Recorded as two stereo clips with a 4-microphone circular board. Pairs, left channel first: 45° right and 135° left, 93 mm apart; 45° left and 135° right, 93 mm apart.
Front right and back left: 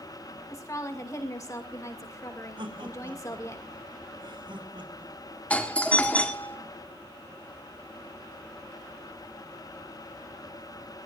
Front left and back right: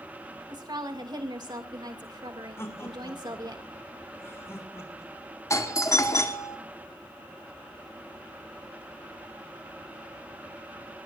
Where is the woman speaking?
95° right, 2 m.